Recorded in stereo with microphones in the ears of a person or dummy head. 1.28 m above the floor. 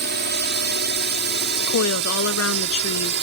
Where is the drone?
50° right (ahead or behind); by 3.2 s 55° right (ahead or behind).